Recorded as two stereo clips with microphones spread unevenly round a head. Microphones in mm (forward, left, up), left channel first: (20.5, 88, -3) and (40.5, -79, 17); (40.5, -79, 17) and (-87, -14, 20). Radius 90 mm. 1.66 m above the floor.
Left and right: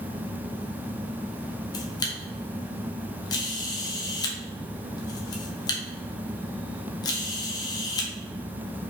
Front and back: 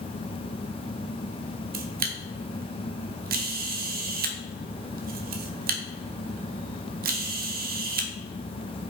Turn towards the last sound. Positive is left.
turn(degrees=170)